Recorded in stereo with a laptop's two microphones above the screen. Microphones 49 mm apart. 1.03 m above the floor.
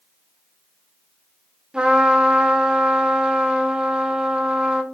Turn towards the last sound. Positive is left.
turn(degrees=-15)  # may be behind; listen again after turning